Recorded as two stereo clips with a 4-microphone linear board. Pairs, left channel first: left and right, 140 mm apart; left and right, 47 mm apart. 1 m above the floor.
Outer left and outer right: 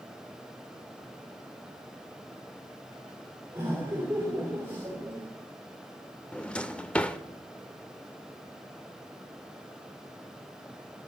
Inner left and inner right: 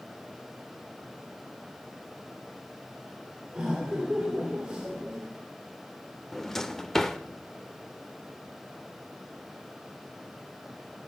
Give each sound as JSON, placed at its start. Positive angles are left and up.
{"t": 3.5, "sound": "laughter", "side_deg": -20, "distance_m": 2.5}
{"t": 6.3, "sound": "a drawer", "side_deg": 10, "distance_m": 0.7}